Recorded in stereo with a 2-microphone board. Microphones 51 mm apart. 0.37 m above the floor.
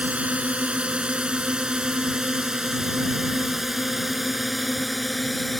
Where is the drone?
25° right (ahead or behind); by 5.6 s centre (ahead or behind).